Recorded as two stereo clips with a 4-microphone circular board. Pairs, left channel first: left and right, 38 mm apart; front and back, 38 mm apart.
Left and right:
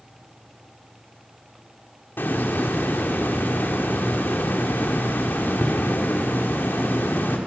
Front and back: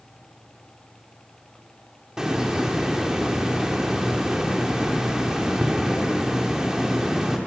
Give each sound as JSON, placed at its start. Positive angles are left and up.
{"t": 2.2, "sound": "a hiss", "azimuth_deg": 105, "distance_m": 3.0}